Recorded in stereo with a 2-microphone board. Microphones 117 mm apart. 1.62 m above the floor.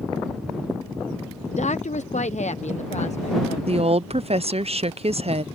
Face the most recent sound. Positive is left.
turn(degrees=-60)  # may be behind; listen again after turning